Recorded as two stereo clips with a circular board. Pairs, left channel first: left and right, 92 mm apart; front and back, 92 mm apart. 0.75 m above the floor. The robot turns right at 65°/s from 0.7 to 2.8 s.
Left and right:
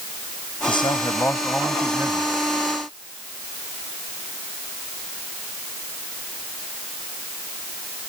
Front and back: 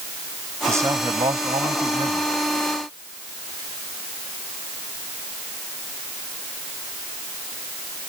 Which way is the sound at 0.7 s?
115° left.